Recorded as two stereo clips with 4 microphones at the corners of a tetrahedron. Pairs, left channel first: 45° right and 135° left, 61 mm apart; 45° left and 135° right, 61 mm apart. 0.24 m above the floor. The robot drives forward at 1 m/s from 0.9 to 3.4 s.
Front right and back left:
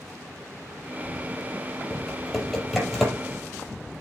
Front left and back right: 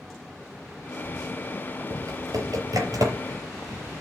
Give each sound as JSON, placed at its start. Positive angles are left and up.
{"t": 1.9, "sound": "typing on a keyboard", "azimuth_deg": -125, "distance_m": 5.0}